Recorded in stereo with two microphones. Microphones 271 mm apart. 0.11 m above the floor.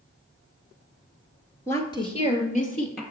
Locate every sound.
1.7 s a woman speaking: 10° left (ahead or behind), 1.4 m; by 3.0 s 35° left (ahead or behind), 2.5 m